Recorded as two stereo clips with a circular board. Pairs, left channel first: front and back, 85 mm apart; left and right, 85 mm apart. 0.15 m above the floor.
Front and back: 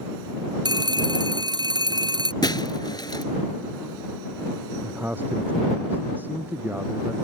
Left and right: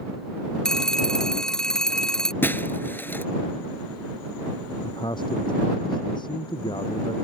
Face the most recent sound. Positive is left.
turn(degrees=115)